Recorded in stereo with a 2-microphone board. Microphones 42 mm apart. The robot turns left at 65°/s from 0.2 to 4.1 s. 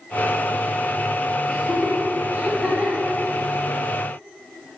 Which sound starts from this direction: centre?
Laughter, at 1.5 s.